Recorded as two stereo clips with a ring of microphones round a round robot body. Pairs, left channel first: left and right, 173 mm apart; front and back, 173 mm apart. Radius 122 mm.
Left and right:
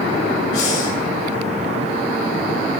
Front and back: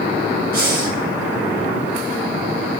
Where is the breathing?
155° left, 2.5 m.